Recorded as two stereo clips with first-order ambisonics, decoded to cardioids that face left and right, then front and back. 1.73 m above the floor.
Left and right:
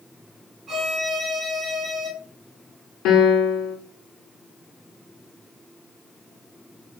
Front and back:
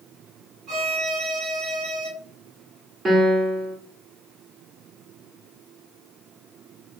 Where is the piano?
110° left, 0.8 m.